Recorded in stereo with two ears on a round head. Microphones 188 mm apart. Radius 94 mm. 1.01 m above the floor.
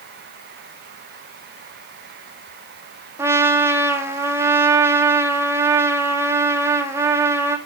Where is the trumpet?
15° right (ahead or behind), 1.5 m.